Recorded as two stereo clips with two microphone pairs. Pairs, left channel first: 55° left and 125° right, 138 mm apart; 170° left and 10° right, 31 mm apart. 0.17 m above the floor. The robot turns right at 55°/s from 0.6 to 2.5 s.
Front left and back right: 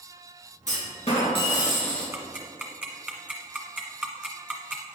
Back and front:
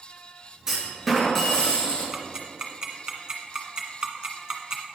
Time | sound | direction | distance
0.7 | a clunk | 60° left | 2.5 m
2.1 | ticking | 75° right | 1.4 m